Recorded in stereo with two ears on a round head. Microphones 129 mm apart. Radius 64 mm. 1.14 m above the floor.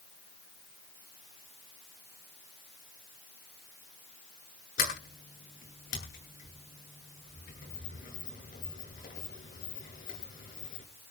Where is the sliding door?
65° left (ahead or behind), 8.5 m.